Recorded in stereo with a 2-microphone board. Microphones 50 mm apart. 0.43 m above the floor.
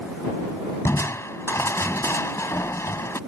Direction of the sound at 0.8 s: 65° left (ahead or behind).